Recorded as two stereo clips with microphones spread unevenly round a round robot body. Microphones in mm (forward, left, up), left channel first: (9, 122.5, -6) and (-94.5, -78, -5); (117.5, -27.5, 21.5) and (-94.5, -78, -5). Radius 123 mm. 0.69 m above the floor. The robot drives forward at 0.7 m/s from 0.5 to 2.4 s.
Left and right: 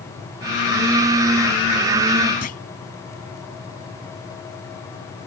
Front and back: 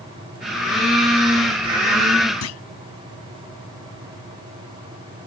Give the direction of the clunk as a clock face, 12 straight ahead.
12 o'clock.